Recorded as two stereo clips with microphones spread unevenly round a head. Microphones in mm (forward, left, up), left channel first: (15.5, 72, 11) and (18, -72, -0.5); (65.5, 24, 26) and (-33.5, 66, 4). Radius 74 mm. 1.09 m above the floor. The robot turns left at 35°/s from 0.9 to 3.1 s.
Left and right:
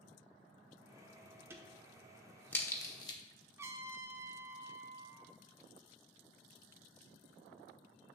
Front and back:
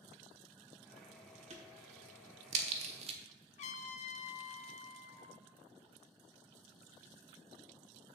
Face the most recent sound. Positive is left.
turn(degrees=-15)